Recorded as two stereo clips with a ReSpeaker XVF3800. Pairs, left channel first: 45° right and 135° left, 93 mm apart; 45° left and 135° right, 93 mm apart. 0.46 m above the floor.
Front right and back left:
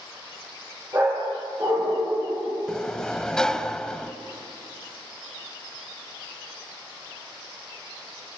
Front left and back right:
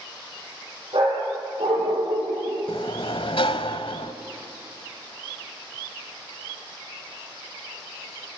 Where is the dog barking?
170° right, 8 m; by 2.6 s 160° right, 7.5 m.